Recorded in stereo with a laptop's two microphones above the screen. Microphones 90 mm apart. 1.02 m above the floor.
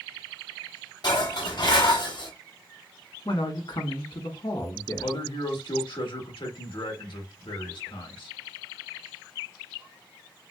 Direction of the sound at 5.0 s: 70° left (ahead or behind).